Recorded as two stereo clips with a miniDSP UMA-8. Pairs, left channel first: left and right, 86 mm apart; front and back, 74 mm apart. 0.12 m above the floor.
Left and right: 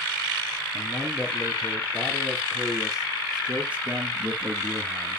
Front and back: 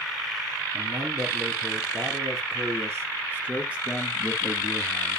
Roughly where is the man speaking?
Behind.